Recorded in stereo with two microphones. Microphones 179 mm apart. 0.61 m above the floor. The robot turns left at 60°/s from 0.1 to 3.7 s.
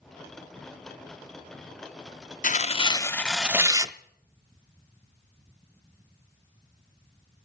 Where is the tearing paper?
55° left, 0.5 m; by 3.9 s 20° right, 0.5 m.